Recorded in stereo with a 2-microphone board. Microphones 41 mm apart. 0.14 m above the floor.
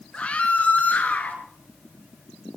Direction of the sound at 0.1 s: 30° left (ahead or behind).